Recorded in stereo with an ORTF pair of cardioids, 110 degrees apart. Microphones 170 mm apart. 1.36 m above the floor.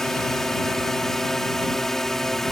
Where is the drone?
Straight ahead.